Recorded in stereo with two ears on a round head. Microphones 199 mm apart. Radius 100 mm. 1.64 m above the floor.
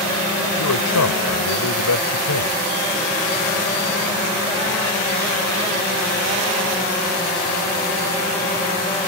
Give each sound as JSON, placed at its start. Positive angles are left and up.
{"t": 0.6, "sound": "a man speaking", "side_deg": 85}